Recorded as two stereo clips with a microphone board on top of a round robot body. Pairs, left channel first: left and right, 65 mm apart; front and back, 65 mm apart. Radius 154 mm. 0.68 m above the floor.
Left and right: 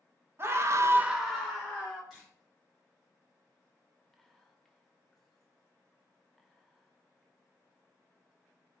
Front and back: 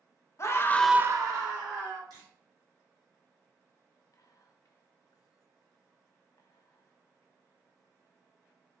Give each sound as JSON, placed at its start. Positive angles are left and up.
{"t": 0.4, "sound": "a scream", "azimuth_deg": -40, "distance_m": 1.0}
{"t": 2.1, "sound": "a camera shutter", "azimuth_deg": 180, "distance_m": 2.0}
{"t": 4.1, "sound": "whispering", "azimuth_deg": 5, "distance_m": 0.8}